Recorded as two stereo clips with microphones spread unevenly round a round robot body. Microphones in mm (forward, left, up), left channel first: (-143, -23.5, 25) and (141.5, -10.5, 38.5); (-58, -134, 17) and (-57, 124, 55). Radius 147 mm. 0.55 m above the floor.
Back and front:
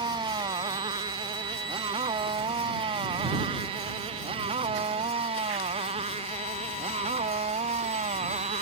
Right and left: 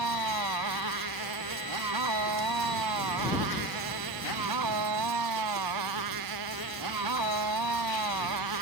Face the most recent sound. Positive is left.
turn(degrees=70)